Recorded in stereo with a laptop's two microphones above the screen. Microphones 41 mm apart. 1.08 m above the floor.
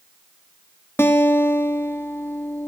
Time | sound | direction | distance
1.0 | a guitar | 70° left (ahead or behind) | 1.1 m